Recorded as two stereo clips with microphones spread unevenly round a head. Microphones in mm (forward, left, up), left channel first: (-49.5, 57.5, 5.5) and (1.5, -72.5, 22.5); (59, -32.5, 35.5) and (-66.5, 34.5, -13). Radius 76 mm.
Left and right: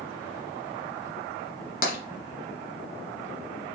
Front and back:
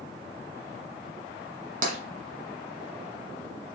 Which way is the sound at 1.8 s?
105° left.